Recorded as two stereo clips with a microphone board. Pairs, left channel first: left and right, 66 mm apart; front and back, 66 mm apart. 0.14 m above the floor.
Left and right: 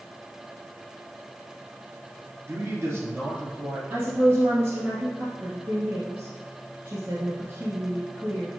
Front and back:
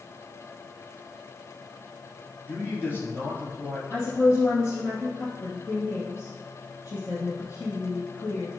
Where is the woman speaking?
35° right, 2.5 m.